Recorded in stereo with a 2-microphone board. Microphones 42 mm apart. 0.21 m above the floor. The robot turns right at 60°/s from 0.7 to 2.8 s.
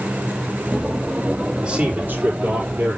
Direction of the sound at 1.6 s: 155° right.